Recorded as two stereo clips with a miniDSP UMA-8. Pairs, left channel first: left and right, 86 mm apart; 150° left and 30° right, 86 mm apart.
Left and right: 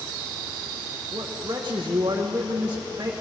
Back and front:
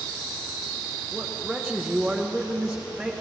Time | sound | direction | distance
1.1 | a man speaking | 120° right | 1.3 m